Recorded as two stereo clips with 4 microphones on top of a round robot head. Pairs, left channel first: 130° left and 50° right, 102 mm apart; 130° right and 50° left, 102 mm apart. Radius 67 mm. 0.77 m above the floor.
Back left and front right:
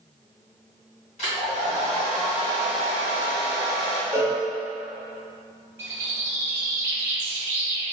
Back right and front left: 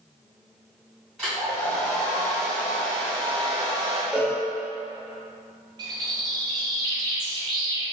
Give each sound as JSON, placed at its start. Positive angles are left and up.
{"t": 1.2, "sound": "a hair dryer", "azimuth_deg": 145, "distance_m": 2.0}
{"t": 4.1, "sound": "a cowbell", "azimuth_deg": -15, "distance_m": 1.0}
{"t": 5.8, "sound": "a bird", "azimuth_deg": 15, "distance_m": 0.8}